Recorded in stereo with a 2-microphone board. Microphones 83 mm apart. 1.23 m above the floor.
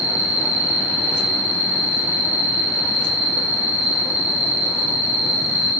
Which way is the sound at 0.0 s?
20° right (ahead or behind).